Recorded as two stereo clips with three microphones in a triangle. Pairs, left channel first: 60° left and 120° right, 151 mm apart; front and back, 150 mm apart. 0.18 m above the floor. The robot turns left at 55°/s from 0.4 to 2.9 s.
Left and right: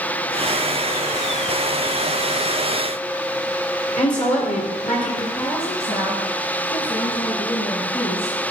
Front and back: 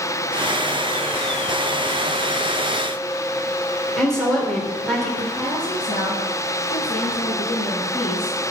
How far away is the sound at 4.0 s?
About 4 m.